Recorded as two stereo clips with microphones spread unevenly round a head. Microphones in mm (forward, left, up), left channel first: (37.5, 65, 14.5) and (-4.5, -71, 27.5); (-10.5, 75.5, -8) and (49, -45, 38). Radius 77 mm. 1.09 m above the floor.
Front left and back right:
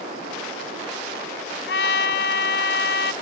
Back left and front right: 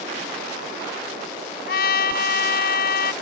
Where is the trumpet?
95° left.